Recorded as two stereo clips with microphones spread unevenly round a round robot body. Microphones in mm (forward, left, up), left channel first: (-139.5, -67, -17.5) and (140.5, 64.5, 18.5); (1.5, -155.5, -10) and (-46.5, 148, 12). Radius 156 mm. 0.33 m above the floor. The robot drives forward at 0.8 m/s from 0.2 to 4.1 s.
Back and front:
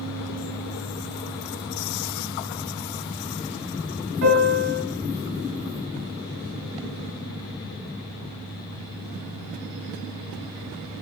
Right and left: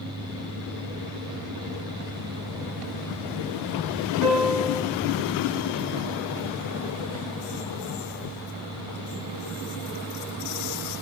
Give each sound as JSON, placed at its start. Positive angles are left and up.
{"t": 4.2, "sound": "a piano", "azimuth_deg": -30, "distance_m": 2.0}